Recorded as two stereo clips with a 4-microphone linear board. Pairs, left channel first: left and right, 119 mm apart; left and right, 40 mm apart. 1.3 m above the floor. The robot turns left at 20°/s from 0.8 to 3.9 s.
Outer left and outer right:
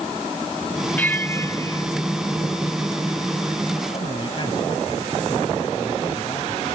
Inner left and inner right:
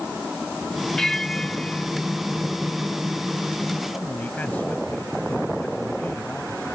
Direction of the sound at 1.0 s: 15° left (ahead or behind).